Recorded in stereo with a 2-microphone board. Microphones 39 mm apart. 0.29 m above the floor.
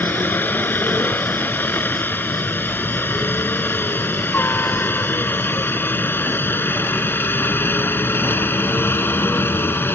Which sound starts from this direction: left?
A helicopter, at 0.0 s.